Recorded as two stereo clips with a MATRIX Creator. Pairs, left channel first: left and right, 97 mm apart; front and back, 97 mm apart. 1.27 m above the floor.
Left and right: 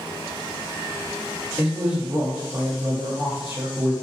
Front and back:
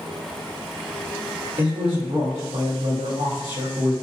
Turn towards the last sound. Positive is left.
turn(degrees=-165)